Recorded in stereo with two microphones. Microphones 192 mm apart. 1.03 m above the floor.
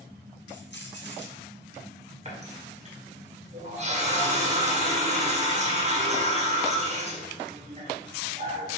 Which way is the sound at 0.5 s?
65° left (ahead or behind).